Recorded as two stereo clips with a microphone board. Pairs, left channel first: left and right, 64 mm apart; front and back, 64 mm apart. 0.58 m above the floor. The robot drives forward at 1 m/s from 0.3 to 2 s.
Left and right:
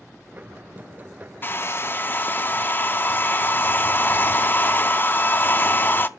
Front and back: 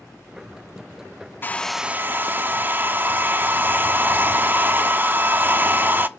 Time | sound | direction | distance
1.4 | a hair dryer | 45° left | 0.6 m